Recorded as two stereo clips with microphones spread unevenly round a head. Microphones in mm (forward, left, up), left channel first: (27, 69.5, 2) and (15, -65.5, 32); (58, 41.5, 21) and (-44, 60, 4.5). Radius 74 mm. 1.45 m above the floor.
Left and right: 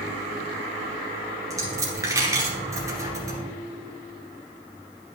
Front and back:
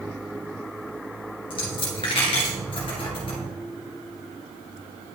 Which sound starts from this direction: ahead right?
A dropped coin, at 1.5 s.